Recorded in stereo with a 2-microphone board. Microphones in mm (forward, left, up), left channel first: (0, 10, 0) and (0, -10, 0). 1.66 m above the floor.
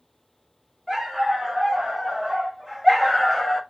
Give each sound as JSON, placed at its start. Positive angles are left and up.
{"t": 0.9, "sound": "a dog barking", "side_deg": -10, "distance_m": 2.5}